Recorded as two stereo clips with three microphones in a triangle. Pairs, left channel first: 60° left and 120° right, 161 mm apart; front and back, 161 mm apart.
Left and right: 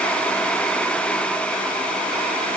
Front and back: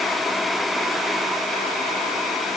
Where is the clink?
No clink in this recording.